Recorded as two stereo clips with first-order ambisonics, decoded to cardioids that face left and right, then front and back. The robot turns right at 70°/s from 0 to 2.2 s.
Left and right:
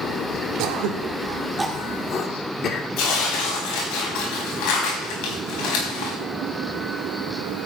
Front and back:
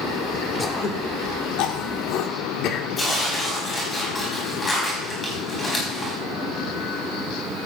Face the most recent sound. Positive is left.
turn(degrees=75)